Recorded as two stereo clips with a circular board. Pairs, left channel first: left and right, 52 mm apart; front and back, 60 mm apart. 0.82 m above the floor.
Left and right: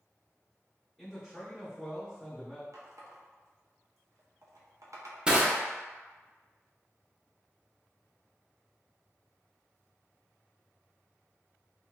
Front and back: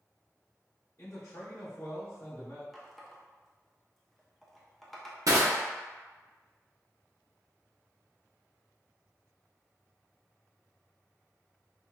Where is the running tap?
90° right, 0.5 m.